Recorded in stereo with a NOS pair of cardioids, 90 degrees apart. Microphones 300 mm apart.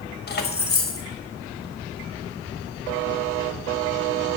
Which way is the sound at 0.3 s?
35° left.